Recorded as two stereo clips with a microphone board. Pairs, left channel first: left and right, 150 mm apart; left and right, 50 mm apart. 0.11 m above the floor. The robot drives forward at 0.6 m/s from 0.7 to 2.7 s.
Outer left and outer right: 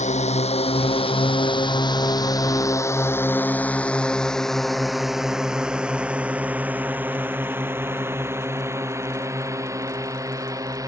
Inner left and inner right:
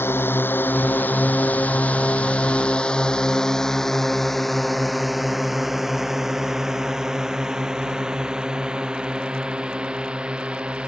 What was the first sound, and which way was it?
A drone, 50° left (ahead or behind).